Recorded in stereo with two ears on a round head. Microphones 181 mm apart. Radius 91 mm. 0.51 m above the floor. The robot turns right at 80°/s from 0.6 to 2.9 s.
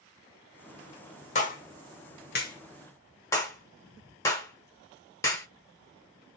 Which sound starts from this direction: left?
A clap, at 1.4 s.